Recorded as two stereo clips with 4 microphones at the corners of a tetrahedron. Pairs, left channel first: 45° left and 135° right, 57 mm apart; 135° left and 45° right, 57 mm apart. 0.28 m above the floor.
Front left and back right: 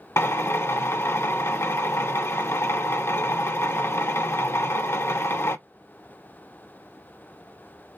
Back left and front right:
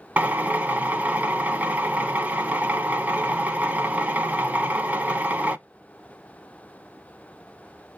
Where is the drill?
15° left, 0.6 m.